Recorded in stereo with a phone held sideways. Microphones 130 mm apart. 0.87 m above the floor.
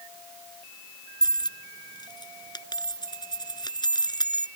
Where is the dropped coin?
35° left (ahead or behind).